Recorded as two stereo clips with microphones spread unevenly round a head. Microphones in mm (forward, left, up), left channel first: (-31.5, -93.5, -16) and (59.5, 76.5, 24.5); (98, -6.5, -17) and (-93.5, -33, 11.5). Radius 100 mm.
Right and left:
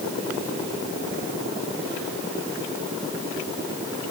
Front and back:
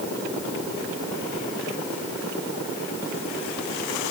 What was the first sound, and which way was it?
Only background noise.